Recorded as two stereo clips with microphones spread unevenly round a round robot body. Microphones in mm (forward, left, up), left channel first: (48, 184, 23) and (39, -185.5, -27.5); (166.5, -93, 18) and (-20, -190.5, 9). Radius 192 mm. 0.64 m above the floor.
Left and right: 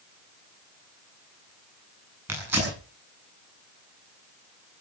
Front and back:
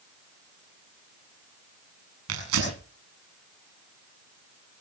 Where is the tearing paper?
175° right, 7.5 m.